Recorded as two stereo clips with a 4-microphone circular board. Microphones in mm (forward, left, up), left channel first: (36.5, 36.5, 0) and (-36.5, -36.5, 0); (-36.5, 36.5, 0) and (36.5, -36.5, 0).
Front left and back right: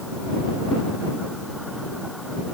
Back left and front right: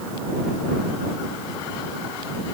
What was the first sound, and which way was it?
Only background noise.